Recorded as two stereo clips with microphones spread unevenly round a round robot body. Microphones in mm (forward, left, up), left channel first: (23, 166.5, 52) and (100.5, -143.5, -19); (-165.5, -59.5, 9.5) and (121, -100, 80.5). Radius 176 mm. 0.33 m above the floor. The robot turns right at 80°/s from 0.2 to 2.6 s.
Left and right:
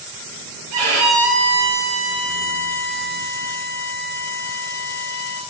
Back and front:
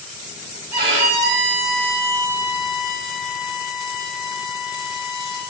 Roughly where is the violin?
Right.